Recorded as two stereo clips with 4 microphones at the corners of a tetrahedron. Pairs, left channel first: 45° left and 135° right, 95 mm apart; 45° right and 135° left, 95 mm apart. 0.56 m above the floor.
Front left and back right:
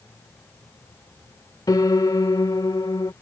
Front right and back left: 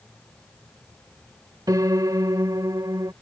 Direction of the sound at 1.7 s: 90° left.